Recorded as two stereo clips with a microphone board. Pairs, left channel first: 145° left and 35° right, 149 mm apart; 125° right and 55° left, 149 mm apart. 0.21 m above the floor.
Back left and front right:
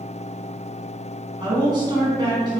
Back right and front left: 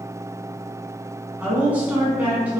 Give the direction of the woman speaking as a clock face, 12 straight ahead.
12 o'clock.